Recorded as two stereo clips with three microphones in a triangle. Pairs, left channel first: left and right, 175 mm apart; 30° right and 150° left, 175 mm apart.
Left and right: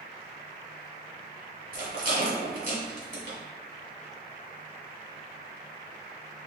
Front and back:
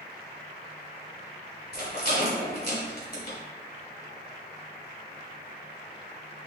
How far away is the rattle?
About 1.7 m.